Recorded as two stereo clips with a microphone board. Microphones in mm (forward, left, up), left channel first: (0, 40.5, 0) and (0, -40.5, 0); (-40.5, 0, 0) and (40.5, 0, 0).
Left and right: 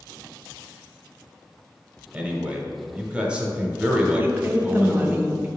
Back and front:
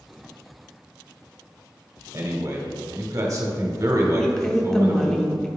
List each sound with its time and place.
2.1 s a man speaking: 20° right, 1.1 m
4.2 s a woman speaking: 105° right, 0.7 m